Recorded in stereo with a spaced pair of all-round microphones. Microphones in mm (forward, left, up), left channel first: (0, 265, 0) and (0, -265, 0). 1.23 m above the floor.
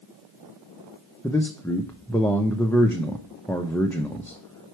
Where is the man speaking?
5° left (ahead or behind), 0.7 m.